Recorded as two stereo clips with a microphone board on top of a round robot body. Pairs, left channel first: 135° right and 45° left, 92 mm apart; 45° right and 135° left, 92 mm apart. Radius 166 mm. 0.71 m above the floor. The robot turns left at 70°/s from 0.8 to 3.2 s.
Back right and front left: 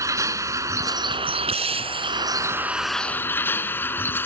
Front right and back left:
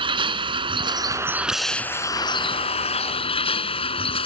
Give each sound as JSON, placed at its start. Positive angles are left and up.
{"t": 0.0, "sound": "a vehicle", "azimuth_deg": 100}